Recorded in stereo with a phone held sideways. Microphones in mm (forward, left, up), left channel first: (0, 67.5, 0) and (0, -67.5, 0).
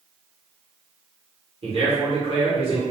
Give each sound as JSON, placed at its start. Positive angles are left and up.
{"t": 1.6, "sound": "a man speaking", "side_deg": -50, "distance_m": 1.1}